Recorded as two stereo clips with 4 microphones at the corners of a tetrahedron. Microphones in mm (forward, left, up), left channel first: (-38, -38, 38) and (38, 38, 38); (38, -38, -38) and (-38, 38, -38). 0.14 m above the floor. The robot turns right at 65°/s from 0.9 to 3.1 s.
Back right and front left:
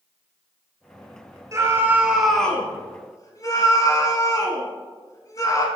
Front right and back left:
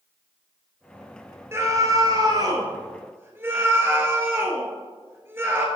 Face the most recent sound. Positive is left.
turn(degrees=-170)